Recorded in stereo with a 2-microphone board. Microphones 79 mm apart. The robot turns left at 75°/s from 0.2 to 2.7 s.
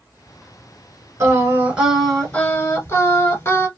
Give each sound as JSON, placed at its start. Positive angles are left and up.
{"t": 1.2, "sound": "singing", "azimuth_deg": -120, "distance_m": 1.2}